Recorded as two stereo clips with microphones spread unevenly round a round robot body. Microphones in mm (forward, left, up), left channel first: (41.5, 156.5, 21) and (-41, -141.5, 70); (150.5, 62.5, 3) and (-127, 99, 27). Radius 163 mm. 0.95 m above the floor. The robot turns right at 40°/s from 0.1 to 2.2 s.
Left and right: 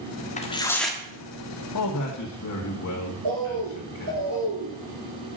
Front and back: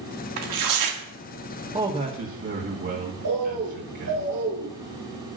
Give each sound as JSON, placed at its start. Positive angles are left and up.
{"t": 0.4, "sound": "tearing paper", "azimuth_deg": 145, "distance_m": 1.7}
{"t": 1.7, "sound": "a man speaking", "azimuth_deg": 100, "distance_m": 1.8}
{"t": 3.2, "sound": "a bird", "azimuth_deg": -135, "distance_m": 5.0}